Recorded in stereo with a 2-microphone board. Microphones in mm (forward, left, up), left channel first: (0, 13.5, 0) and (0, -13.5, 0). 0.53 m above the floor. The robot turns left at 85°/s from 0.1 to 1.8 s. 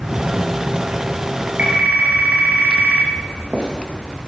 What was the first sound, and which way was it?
A phone ringing, 70° right (ahead or behind).